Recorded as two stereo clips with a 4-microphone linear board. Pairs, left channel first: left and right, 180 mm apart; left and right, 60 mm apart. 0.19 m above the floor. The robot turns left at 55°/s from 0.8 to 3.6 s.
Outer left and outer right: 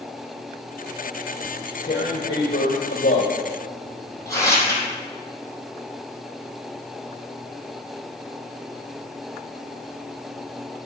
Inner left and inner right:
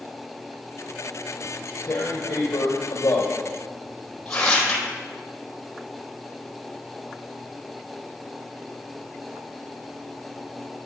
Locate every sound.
1.4 s tearing paper: 45° left (ahead or behind), 3 m; by 4.8 s 20° left (ahead or behind), 3 m